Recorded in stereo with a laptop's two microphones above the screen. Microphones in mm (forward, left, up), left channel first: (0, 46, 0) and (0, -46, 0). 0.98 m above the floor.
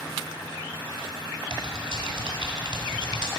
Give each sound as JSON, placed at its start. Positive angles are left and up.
{"t": 1.5, "sound": "typing on a keyboard", "side_deg": -65, "distance_m": 1.9}